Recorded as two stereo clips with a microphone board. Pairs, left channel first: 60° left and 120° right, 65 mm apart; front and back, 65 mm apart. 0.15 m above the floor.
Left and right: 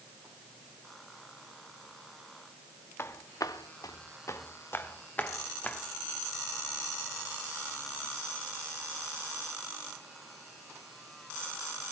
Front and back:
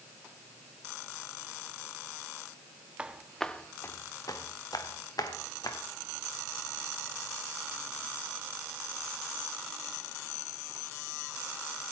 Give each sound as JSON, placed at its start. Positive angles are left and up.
{"t": 3.0, "sound": "footsteps", "azimuth_deg": 110, "distance_m": 1.0}